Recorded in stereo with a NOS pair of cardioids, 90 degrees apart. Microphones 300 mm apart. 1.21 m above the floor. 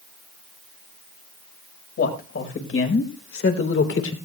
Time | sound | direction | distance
2.0 | a man speaking | 45° left | 4.5 m